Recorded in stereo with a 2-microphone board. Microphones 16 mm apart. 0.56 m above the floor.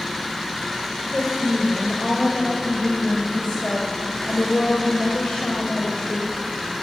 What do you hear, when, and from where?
1.1 s a woman speaking: 60° left (ahead or behind), 3 m